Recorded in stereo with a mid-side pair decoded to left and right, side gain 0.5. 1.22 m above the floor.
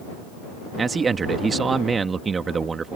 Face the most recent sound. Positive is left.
turn(degrees=-30)